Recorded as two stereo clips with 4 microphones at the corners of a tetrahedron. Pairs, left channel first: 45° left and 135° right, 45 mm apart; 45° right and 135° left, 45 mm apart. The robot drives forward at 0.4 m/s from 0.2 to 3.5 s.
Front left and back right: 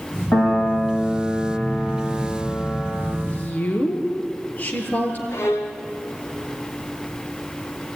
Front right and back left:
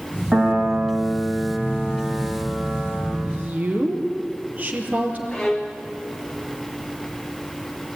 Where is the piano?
50° left, 6 m; by 3.1 s 60° left, 5.5 m.